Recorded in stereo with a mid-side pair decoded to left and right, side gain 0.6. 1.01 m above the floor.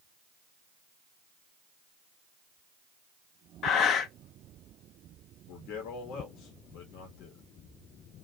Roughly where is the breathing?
Ahead left.